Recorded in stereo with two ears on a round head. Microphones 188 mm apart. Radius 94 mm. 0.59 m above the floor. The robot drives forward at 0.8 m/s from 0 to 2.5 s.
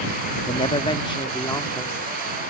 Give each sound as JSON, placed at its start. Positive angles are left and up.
{"t": 0.5, "sound": "a woman speaking", "side_deg": 25}